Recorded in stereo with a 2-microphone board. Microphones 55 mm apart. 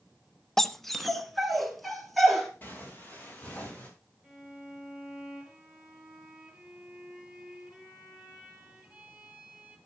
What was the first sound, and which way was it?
A dog barking, 5° left (ahead or behind).